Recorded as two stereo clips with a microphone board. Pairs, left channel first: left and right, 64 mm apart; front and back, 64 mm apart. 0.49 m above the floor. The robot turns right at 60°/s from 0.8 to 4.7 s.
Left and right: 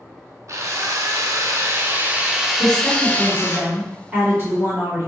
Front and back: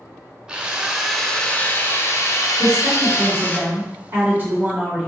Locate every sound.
0.5 s a drill: 105° right, 0.7 m; by 3.6 s 65° left, 0.7 m
2.6 s a woman speaking: 120° left, 1.8 m; by 5.1 s 115° right, 1.8 m